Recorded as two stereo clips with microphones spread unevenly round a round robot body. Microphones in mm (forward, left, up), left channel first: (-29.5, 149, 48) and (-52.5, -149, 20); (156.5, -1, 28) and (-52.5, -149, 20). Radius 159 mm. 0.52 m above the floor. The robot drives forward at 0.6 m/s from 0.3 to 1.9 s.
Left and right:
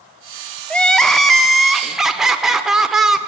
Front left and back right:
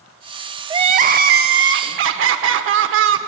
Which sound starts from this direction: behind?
Crying, at 0.7 s.